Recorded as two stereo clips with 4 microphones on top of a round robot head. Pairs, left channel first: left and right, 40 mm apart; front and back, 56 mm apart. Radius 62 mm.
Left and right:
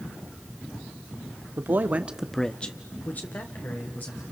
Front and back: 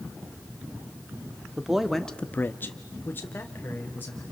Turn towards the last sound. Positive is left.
turn(degrees=55)